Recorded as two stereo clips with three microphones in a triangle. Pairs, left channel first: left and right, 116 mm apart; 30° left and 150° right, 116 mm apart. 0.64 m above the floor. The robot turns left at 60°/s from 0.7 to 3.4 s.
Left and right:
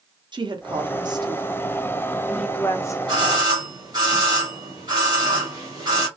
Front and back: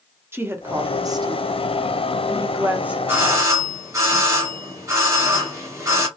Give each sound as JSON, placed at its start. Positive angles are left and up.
{"t": 0.3, "sound": "a woman speaking", "azimuth_deg": -90, "distance_m": 0.6}
{"t": 3.1, "sound": "a doorbell", "azimuth_deg": -90, "distance_m": 1.3}